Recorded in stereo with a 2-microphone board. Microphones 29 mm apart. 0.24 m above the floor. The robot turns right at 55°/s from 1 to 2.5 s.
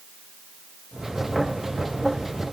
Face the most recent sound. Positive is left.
No sound to turn to.